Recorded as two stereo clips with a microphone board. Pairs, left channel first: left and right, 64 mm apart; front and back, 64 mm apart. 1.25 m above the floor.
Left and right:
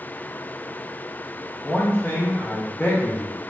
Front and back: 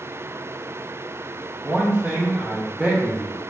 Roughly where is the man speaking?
Behind left.